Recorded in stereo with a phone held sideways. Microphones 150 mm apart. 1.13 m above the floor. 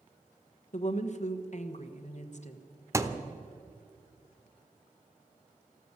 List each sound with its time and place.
0.7 s a woman speaking: 55° left (ahead or behind), 1.2 m
2.9 s a thud: 20° right (ahead or behind), 0.8 m